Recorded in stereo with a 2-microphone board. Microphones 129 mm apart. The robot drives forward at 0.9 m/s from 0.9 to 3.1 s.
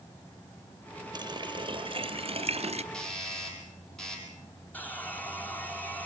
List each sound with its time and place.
1.1 s a running tap: 35° right (ahead or behind), 2 m; by 2.8 s 55° right (ahead or behind), 1.5 m
2.9 s a doorbell: 5° left (ahead or behind), 5.5 m
4.7 s sawing: 15° left (ahead or behind), 1.6 m